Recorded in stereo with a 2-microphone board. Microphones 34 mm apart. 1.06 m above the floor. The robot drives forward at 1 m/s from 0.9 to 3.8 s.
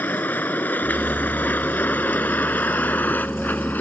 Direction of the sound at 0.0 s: 75° left (ahead or behind).